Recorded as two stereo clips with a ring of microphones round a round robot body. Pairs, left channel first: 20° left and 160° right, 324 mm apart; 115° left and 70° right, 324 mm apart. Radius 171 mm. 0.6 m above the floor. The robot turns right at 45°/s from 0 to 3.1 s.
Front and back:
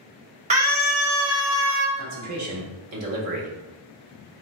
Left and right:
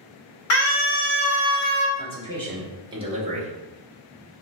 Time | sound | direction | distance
0.5 | a scream | 135° left | 1.1 m
2.0 | a man speaking | 175° left | 1.2 m